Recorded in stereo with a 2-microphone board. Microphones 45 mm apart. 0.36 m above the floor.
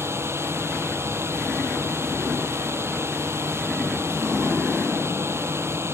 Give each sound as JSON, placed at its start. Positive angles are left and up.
{"t": 0.0, "sound": "a drone", "side_deg": -65}